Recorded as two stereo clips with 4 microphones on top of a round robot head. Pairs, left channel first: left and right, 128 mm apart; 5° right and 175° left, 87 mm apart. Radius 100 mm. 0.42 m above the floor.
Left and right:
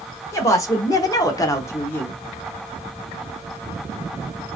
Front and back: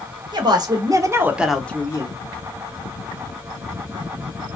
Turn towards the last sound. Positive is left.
turn(degrees=15)